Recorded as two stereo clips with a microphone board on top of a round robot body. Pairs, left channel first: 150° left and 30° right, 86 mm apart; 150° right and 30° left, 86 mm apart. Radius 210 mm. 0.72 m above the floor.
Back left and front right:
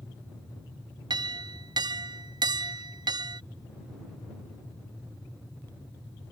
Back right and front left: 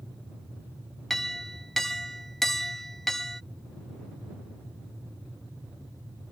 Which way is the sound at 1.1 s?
65° right.